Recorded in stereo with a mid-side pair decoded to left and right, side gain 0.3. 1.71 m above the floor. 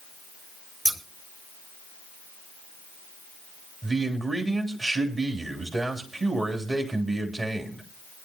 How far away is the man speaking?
About 3 m.